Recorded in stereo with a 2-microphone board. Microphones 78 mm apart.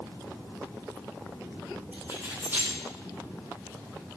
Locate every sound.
1.9 s keys jangling: 25° right (ahead or behind), 9.5 m